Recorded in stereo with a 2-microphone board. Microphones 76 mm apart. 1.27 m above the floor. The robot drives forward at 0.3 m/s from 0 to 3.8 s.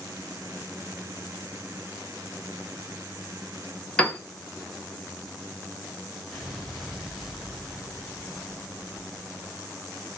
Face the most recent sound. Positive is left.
turn(degrees=0)  # may be behind; listen again after turning